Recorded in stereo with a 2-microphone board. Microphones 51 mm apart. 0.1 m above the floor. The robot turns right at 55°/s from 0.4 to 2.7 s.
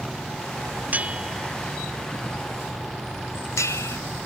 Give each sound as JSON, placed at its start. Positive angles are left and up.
{"t": 0.9, "sound": "a bell", "side_deg": -35}